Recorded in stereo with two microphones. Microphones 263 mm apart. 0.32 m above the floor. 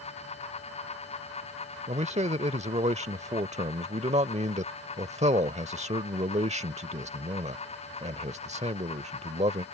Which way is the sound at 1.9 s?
25° right (ahead or behind).